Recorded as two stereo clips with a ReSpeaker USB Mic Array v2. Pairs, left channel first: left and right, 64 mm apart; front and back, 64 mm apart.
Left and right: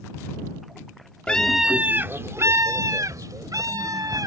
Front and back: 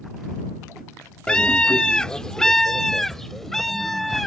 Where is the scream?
50° left; by 4.3 s 85° right.